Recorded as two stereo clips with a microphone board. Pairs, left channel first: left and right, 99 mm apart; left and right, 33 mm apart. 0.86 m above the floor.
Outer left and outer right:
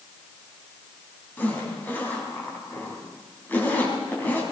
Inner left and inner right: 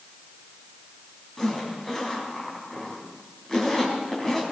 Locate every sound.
1.4 s a zipper: 20° left (ahead or behind), 4 m